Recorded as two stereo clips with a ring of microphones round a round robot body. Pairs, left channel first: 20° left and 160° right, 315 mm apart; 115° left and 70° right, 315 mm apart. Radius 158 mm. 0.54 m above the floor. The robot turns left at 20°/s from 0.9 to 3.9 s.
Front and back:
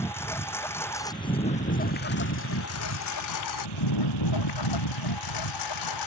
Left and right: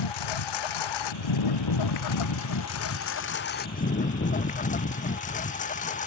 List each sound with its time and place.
0.0 s a lawn mower: 105° left; by 6.1 s 45° left